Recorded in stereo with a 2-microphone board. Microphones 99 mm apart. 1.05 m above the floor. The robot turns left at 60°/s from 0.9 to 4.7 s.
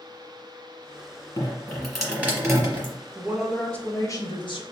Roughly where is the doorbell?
No doorbell in this recording.